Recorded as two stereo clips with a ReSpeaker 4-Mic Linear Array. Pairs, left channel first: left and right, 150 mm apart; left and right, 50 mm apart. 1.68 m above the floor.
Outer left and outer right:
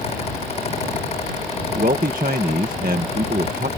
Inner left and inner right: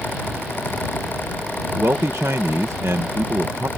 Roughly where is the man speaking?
Right.